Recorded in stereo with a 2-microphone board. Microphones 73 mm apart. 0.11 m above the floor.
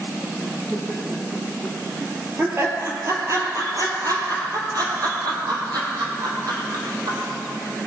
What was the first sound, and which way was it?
Laughter, 10° right (ahead or behind).